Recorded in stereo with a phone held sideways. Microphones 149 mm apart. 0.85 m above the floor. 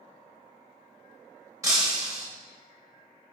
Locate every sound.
1.6 s breaking glass: 20° right (ahead or behind), 2.5 m